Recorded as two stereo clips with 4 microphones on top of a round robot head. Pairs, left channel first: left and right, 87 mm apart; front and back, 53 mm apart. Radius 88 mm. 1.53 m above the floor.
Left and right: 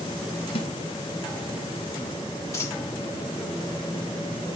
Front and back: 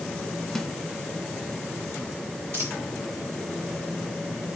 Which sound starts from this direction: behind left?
A dropped coin, at 2.5 s.